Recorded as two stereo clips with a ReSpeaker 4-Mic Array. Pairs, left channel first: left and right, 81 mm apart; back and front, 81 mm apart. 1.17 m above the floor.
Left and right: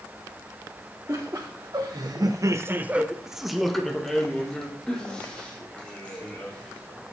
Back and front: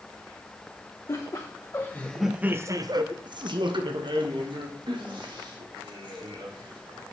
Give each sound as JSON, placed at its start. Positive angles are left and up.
{"t": 1.1, "sound": "laughter", "azimuth_deg": -140, "distance_m": 1.1}